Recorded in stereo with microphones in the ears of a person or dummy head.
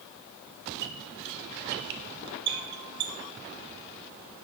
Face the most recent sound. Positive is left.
turn(degrees=-55)  # may be behind; listen again after turning